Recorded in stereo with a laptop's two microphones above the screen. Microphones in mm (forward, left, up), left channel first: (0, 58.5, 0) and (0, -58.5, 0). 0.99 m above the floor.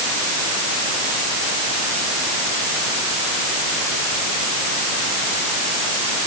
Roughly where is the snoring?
I don't hear snoring.